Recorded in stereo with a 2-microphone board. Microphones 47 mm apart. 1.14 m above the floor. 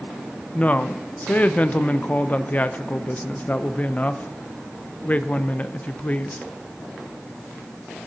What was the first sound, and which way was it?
A woman speaking, 30° left (ahead or behind).